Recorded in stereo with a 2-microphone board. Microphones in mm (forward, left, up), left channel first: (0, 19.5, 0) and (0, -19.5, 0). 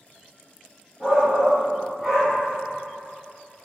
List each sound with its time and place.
1.0 s a shout: 25° right (ahead or behind), 2.5 m; by 2.4 s 5° right (ahead or behind), 2 m